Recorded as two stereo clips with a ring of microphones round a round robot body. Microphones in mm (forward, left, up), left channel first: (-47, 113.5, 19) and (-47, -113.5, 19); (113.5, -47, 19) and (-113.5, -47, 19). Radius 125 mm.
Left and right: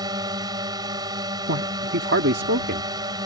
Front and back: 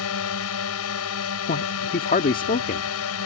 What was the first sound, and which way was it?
A drone, 15° right.